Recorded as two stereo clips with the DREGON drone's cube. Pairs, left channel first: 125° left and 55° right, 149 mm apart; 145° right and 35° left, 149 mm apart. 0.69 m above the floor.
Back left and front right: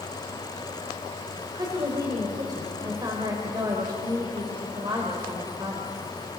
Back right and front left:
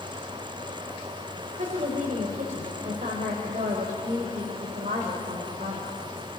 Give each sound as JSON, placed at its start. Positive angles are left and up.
{"t": 1.5, "sound": "a woman speaking", "azimuth_deg": 5, "distance_m": 3.5}